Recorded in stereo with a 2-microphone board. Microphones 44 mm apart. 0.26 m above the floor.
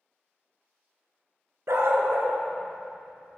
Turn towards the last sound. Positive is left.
turn(degrees=-40)  # may be behind; listen again after turning